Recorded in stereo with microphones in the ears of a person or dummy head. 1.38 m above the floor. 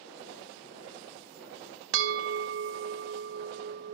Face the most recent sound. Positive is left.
turn(degrees=-75)  # may be behind; listen again after turning